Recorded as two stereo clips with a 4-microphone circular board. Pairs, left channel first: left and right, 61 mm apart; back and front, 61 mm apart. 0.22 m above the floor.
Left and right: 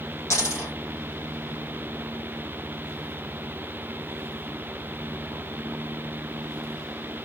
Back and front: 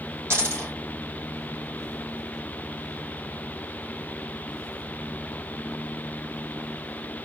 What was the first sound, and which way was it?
A dropped coin, 45° left.